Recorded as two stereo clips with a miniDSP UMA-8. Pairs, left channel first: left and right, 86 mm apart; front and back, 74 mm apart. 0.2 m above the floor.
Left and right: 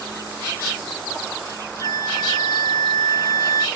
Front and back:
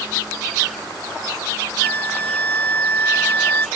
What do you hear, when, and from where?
1.8 s a flute: 60° left